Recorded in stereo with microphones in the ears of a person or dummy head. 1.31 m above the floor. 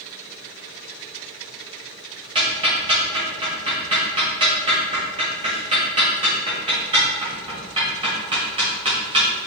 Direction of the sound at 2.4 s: 20° right (ahead or behind).